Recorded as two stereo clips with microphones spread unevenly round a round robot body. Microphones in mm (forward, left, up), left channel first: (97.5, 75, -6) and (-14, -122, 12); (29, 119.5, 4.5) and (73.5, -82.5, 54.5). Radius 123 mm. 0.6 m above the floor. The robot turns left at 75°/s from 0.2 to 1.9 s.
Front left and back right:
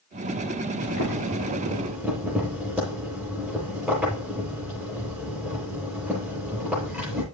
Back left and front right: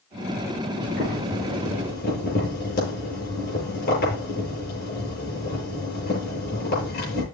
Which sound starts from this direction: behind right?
Boiling, at 0.8 s.